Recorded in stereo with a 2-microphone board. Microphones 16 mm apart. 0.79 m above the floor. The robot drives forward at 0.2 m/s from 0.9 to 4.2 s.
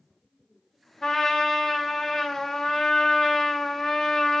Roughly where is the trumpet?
Left.